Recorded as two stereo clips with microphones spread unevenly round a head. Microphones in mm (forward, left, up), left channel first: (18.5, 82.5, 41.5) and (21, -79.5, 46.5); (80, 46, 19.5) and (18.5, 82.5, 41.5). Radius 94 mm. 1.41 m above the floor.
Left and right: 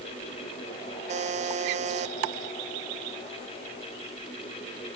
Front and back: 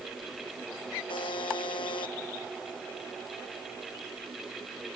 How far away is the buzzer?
About 0.6 m.